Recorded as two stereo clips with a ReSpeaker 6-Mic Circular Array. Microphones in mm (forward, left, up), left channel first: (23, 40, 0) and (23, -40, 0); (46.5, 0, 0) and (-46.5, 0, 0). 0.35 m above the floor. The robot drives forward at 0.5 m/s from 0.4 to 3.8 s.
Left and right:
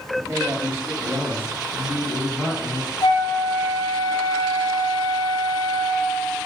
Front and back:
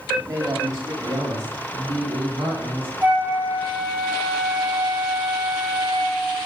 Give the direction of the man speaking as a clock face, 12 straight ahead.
4 o'clock.